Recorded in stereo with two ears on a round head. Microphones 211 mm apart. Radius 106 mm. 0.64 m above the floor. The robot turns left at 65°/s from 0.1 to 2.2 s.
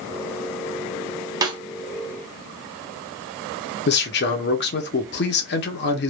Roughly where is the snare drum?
Centre.